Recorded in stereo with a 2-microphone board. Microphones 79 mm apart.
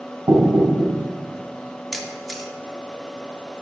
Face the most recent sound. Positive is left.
turn(degrees=0)  # may be behind; listen again after turning